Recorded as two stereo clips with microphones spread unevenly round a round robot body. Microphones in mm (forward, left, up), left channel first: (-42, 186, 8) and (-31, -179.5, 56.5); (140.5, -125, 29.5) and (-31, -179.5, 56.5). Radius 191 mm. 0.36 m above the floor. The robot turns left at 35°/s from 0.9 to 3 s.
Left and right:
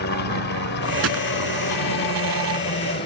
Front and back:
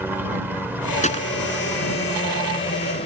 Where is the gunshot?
30° right; by 1.3 s 40° right.